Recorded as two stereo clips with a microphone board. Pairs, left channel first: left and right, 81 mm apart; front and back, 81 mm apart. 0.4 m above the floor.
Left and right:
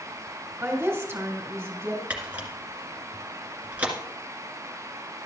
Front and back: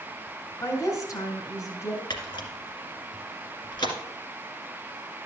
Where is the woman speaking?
35° right, 2.5 m.